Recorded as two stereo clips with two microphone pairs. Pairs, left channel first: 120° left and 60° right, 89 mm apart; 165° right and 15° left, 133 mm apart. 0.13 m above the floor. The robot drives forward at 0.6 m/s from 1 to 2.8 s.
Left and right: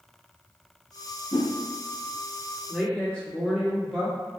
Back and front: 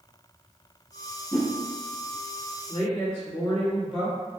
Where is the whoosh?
120° left, 1.9 m; by 1.5 s 125° left, 2.0 m.